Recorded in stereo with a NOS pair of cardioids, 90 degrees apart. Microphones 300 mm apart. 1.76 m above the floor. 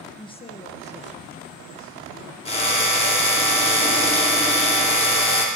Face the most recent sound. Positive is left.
turn(degrees=20)